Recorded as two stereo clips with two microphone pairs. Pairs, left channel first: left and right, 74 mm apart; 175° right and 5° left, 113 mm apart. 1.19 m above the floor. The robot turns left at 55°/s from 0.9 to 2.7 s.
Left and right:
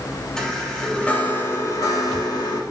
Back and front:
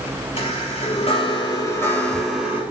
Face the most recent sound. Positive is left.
turn(degrees=70)